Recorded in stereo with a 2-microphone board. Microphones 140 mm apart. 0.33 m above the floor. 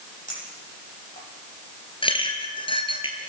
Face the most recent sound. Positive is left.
turn(degrees=35)  # may be behind; listen again after turning